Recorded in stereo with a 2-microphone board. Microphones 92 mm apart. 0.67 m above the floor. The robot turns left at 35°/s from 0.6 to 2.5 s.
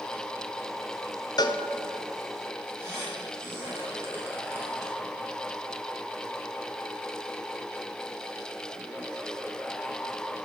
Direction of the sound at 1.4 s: 45° left (ahead or behind).